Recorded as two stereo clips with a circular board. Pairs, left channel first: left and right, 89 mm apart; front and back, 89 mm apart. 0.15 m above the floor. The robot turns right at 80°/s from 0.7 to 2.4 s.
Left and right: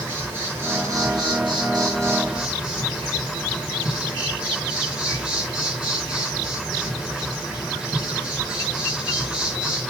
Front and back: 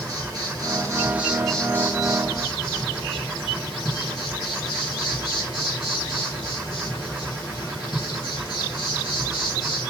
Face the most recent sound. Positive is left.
turn(degrees=-10)